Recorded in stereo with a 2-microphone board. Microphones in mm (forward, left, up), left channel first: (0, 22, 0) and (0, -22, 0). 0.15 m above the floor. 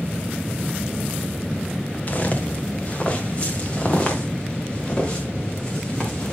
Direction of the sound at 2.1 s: 35° left (ahead or behind).